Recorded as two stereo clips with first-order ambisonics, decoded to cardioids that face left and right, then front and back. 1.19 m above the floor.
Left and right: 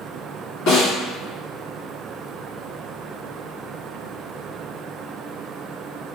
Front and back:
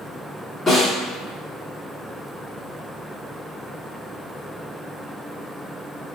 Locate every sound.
0.7 s a snare drum: 75° left, 1.7 m